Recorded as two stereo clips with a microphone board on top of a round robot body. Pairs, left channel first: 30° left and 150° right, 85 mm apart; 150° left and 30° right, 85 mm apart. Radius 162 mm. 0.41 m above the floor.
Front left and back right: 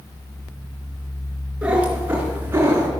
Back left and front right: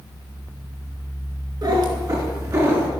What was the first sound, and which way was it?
A cat meowing, 70° right.